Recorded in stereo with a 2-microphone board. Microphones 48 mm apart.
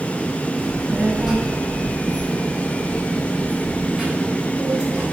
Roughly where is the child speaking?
Centre.